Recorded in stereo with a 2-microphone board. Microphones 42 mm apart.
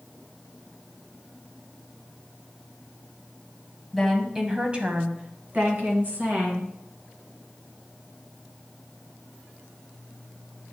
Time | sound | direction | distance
3.9 | a woman speaking | centre (ahead or behind) | 1.1 m